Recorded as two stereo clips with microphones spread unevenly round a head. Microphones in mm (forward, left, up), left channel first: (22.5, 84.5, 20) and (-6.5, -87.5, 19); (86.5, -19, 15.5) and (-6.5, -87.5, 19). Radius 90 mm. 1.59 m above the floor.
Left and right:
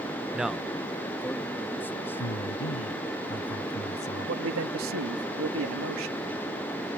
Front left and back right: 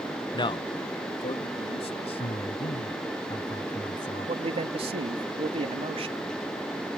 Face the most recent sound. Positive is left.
turn(degrees=-105)